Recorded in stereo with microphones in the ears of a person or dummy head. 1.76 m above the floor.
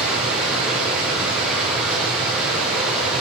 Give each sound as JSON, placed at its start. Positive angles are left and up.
{"t": 0.0, "sound": "running water", "side_deg": -5, "distance_m": 6.5}